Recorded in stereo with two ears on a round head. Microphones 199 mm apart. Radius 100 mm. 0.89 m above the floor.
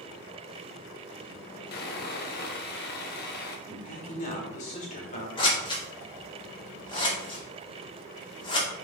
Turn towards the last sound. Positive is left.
turn(degrees=25)  # may be behind; listen again after turning